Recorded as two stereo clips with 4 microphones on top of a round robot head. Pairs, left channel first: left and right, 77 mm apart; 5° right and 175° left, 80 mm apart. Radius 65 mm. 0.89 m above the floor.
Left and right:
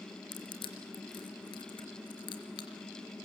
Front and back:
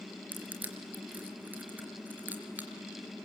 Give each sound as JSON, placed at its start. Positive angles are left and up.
{"t": 0.3, "sound": "crushing", "azimuth_deg": 105, "distance_m": 4.0}